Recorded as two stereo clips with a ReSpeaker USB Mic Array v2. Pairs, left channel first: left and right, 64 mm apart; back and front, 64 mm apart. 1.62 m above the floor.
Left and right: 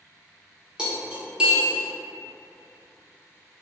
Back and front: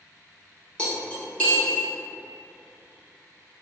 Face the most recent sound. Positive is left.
turn(degrees=-140)